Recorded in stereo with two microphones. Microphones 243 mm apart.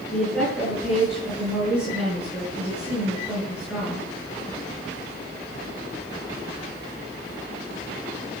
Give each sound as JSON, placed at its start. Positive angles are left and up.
{"t": 0.1, "sound": "a woman speaking", "side_deg": -5, "distance_m": 8.5}